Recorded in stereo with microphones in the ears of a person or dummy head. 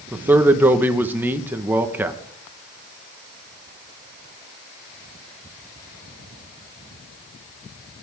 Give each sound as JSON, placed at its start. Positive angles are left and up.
{"t": 0.1, "sound": "a man speaking", "side_deg": -10, "distance_m": 1.1}